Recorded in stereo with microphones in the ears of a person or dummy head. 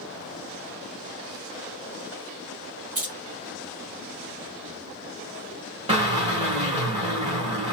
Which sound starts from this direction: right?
A drill, at 5.9 s.